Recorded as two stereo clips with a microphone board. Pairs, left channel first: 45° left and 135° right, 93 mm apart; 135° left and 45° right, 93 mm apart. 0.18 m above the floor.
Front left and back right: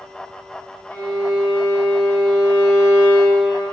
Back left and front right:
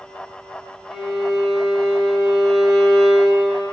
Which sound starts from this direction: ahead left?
A violin, at 0.9 s.